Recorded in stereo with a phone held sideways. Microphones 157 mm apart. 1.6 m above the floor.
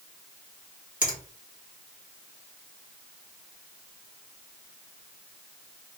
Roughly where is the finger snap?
Left.